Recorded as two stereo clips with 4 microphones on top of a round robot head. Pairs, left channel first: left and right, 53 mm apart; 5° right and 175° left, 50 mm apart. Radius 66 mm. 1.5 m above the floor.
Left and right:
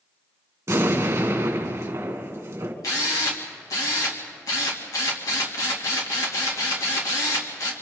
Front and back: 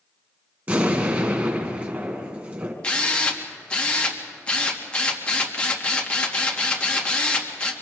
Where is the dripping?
I don't hear dripping.